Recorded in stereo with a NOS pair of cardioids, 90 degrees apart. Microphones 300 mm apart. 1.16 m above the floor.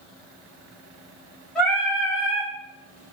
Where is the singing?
5° left, 1.1 m.